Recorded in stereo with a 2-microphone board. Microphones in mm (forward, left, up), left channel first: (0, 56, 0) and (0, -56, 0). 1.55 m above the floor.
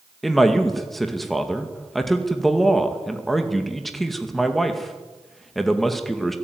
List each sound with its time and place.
0.2 s a man speaking: centre (ahead or behind), 2 m